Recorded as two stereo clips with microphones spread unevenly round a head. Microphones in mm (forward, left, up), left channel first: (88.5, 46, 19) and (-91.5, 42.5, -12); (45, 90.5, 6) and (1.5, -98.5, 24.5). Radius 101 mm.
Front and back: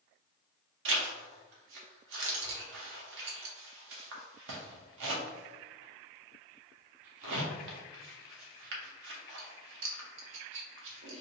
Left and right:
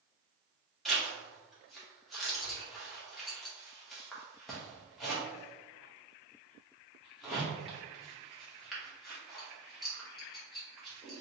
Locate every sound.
0.8 s a zipper: 165° left, 0.8 m